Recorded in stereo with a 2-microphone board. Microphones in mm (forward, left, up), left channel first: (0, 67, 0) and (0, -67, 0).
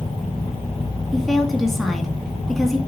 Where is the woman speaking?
Centre (ahead or behind), 2 m.